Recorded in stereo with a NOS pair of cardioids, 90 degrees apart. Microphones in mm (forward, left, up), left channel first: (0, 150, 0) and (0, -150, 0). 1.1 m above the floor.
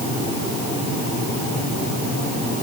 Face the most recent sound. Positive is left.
No sound to turn to.